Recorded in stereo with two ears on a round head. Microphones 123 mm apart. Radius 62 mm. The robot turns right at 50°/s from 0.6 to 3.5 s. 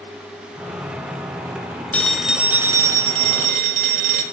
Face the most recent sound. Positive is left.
turn(degrees=-115)